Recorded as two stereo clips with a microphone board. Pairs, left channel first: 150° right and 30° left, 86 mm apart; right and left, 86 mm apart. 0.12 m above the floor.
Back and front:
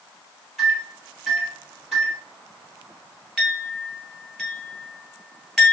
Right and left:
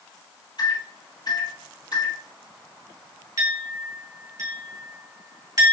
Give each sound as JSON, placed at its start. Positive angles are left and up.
{"t": 0.6, "sound": "a microwave", "azimuth_deg": -60, "distance_m": 3.0}
{"t": 3.4, "sound": "a clink", "azimuth_deg": 115, "distance_m": 1.6}